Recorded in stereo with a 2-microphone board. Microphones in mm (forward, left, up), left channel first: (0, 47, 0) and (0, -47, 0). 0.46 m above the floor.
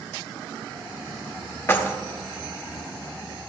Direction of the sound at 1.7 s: 25° left (ahead or behind).